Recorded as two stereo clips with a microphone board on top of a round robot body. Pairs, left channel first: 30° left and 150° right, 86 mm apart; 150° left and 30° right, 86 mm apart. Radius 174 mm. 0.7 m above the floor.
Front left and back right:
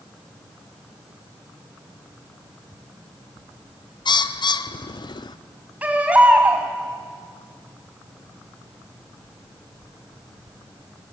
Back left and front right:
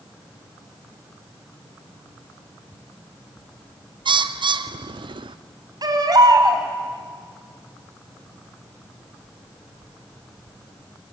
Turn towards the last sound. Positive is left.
turn(degrees=-75)